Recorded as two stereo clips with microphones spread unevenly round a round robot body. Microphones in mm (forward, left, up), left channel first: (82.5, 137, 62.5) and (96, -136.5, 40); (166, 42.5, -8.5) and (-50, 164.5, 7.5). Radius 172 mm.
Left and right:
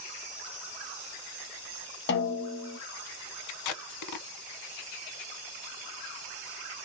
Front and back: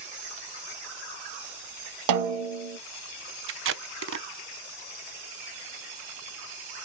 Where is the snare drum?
155° left, 0.7 m.